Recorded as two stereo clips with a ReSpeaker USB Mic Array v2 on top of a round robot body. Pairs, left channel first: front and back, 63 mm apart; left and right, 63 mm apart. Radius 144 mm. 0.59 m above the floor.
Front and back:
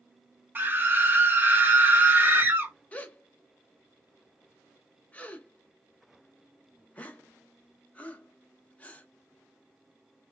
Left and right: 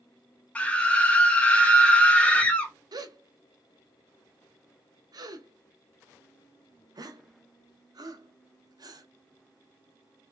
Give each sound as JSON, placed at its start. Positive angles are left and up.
{"t": 0.6, "sound": "a scream", "azimuth_deg": 145, "distance_m": 1.4}
{"t": 2.9, "sound": "a gasp", "azimuth_deg": -70, "distance_m": 0.7}